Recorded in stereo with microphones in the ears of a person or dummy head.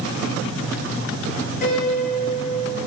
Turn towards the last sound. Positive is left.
turn(degrees=55)  # may be behind; listen again after turning